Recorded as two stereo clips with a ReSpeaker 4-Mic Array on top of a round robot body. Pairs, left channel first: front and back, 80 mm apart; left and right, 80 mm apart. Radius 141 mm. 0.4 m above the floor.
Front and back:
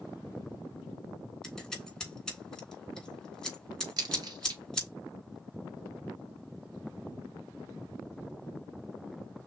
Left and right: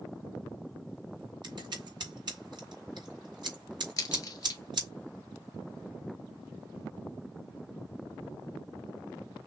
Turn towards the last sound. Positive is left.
turn(degrees=140)